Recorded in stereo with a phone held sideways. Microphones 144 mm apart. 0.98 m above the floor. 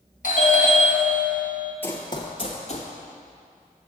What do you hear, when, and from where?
0.2 s a doorbell: 60° left (ahead or behind), 1.6 m
1.8 s running footsteps: 15° left (ahead or behind), 1.1 m; by 2.9 s 55° left (ahead or behind), 1.6 m